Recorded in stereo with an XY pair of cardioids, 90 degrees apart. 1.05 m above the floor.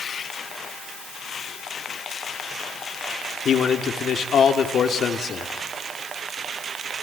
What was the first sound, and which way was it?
A man speaking, 65° left.